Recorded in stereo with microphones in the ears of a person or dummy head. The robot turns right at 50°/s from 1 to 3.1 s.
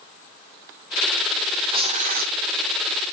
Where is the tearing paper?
160° right, 0.7 m; by 2.3 s 125° right, 0.7 m.